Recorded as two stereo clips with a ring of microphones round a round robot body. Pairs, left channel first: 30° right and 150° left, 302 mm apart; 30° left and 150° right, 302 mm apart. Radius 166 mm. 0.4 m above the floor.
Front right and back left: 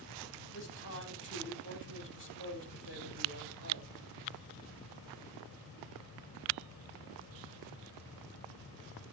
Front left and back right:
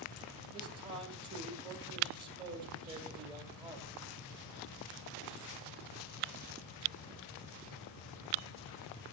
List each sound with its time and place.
0.5 s a man speaking: 75° right, 3.5 m